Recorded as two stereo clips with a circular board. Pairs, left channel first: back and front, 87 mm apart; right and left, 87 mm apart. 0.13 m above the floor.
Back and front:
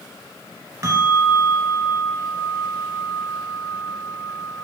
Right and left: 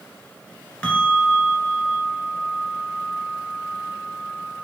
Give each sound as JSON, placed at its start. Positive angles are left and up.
{"t": 0.8, "sound": "a bell", "azimuth_deg": -20, "distance_m": 1.5}